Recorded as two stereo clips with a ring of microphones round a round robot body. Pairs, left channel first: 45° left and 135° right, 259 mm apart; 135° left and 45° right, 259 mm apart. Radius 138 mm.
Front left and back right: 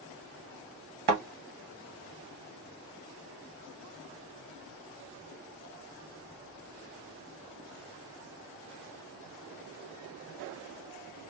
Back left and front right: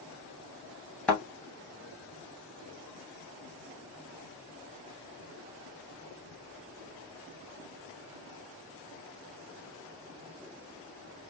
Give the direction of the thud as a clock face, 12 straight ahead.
5 o'clock.